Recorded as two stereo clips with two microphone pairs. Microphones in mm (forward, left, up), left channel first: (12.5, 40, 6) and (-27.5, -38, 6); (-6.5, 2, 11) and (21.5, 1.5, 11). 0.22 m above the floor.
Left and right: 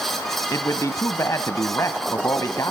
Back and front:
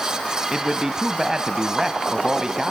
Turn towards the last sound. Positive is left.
turn(degrees=50)